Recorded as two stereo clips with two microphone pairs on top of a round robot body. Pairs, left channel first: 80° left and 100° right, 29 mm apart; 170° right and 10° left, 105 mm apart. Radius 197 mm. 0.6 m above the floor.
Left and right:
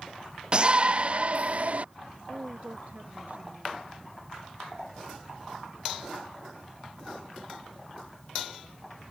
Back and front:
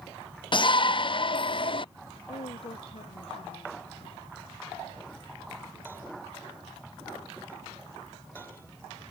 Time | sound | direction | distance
0.5 | a shout | 155° right | ?
2.3 | a woman speaking | 140° right | ?